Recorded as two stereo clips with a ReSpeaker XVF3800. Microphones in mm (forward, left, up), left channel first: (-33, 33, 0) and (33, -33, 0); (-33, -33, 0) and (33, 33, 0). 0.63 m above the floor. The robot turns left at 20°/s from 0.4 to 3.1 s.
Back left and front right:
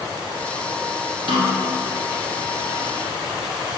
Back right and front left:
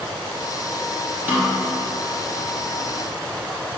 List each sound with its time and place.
1.3 s a snare drum: 20° right, 2 m; by 1.6 s 30° right, 2 m